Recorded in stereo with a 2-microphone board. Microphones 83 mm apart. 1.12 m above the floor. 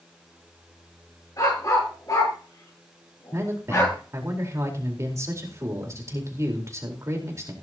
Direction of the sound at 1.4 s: 45° left (ahead or behind).